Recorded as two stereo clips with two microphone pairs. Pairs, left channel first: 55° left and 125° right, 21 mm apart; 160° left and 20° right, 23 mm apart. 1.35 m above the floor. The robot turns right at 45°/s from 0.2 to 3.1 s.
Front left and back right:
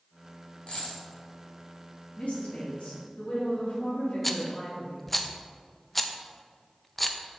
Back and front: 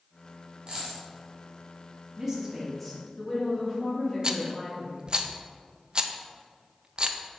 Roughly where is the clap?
I don't hear a clap.